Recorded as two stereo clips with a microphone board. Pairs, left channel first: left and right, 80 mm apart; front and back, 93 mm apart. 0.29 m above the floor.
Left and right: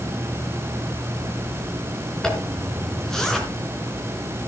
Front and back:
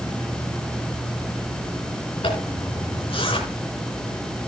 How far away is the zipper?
About 4 m.